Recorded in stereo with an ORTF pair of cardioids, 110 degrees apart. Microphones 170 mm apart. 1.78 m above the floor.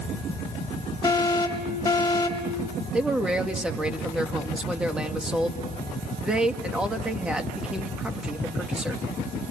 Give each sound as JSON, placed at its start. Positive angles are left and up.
{"t": 1.0, "sound": "an alarm", "azimuth_deg": 20, "distance_m": 4.0}
{"t": 2.9, "sound": "a man speaking", "azimuth_deg": -5, "distance_m": 2.0}